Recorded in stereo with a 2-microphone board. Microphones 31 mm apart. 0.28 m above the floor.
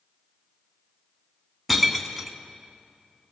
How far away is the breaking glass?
About 1.7 m.